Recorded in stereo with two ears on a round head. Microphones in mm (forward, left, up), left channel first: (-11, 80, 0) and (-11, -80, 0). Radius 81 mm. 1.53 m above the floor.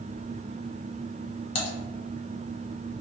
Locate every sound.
1.6 s typing on a keyboard: 30° left (ahead or behind), 1.2 m